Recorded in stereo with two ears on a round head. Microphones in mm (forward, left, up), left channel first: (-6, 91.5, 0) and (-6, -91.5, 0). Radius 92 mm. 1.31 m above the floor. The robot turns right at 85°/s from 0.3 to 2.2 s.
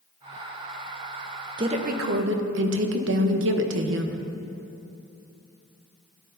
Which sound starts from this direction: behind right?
A woman speaking, at 1.6 s.